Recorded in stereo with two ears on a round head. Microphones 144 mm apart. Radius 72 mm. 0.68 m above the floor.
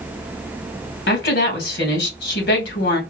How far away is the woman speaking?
About 2 m.